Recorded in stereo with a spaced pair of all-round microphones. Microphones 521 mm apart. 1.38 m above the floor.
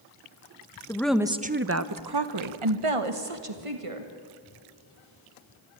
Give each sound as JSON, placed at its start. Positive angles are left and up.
{"t": 0.9, "sound": "a woman speaking", "side_deg": 5, "distance_m": 1.2}